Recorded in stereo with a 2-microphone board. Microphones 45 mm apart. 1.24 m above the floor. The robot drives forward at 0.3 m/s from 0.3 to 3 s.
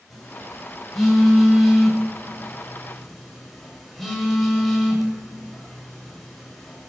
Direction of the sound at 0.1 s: Centre (ahead or behind).